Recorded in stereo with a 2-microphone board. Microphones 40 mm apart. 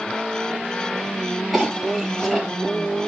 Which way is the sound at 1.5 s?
5° right (ahead or behind).